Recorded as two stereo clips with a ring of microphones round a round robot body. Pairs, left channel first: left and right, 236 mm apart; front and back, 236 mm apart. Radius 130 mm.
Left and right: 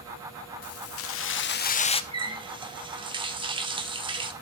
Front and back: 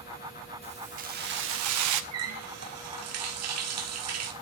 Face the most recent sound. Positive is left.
turn(degrees=-160)